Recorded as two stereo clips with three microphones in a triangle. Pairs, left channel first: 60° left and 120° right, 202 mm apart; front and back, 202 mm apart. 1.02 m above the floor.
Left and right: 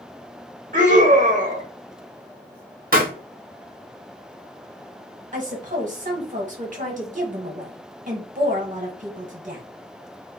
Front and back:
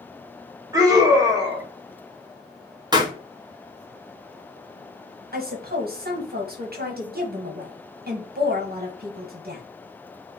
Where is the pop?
120° right, 0.6 m.